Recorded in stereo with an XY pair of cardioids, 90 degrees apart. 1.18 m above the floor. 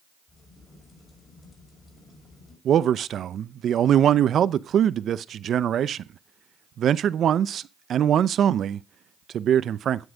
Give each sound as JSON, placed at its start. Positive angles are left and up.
{"t": 0.3, "sound": "a crack", "azimuth_deg": 40, "distance_m": 5.5}
{"t": 2.6, "sound": "a man speaking", "azimuth_deg": -65, "distance_m": 0.7}